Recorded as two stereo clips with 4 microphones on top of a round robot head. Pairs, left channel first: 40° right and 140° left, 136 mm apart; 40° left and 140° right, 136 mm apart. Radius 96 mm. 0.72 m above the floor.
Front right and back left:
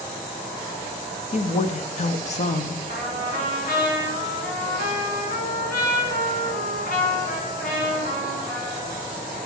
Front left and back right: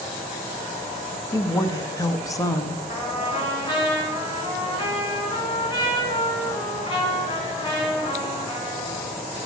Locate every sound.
1.3 s a woman speaking: 20° right, 0.8 m
2.9 s a trumpet: 15° right, 2.5 m